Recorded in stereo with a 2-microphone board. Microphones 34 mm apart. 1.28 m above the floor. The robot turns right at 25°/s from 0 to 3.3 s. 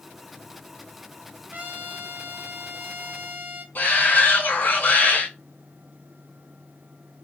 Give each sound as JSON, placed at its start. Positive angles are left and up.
{"t": 1.5, "sound": "a trumpet", "azimuth_deg": -105, "distance_m": 1.2}
{"t": 3.8, "sound": "a shout", "side_deg": 45, "distance_m": 1.7}